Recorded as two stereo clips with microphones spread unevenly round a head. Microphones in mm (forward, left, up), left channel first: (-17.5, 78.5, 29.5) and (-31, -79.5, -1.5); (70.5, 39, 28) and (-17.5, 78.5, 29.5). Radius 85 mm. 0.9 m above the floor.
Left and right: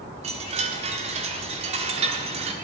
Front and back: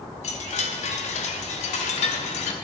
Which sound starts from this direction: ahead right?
A chime, at 0.2 s.